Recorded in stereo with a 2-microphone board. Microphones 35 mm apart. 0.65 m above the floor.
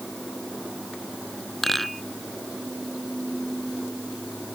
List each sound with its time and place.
1.6 s a rattle: 5° left (ahead or behind)